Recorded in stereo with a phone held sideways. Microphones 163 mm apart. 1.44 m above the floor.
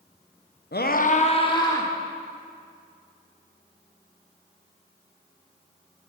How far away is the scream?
About 0.8 m.